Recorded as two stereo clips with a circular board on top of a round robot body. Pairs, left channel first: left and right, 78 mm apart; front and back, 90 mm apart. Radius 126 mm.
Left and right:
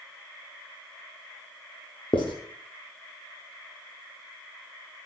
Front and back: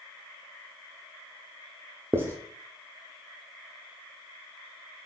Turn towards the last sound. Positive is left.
turn(degrees=115)